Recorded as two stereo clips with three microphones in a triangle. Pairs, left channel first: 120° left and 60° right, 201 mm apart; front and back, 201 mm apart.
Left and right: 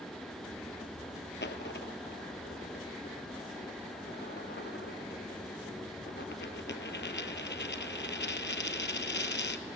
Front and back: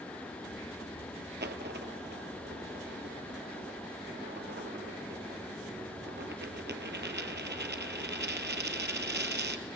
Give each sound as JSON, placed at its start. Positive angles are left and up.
{"t": 1.4, "sound": "a dropped coin", "azimuth_deg": 150, "distance_m": 1.1}